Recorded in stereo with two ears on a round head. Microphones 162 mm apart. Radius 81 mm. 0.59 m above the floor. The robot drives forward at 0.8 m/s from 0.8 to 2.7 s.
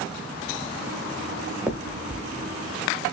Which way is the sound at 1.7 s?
10° right (ahead or behind).